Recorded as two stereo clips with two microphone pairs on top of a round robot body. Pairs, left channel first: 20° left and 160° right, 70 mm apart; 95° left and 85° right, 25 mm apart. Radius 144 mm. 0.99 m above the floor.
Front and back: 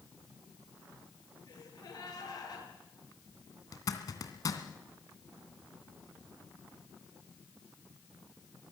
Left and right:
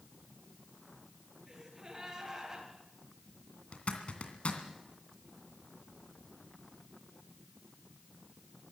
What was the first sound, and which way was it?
A gasp, 15° right.